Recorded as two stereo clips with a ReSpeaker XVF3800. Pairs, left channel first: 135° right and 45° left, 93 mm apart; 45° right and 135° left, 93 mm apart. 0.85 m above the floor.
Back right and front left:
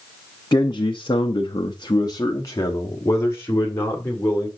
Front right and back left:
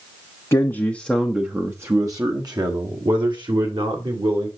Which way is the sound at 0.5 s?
95° right.